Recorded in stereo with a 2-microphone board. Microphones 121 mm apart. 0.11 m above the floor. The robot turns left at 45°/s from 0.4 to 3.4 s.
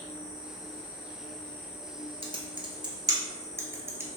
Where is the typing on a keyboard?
55° right (ahead or behind), 0.8 m; by 4.1 s 20° right (ahead or behind), 0.8 m.